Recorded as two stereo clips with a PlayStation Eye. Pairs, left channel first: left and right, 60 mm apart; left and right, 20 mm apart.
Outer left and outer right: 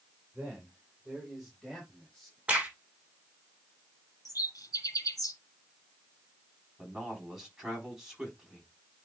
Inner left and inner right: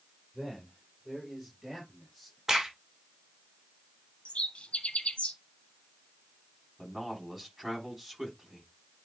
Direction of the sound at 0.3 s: 15° right (ahead or behind).